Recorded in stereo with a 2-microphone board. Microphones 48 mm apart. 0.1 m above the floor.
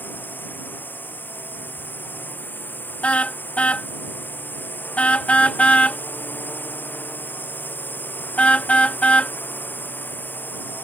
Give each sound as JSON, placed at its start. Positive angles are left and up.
{"t": 0.0, "sound": "a drone", "side_deg": 40}
{"t": 3.0, "sound": "a car horn", "side_deg": 25}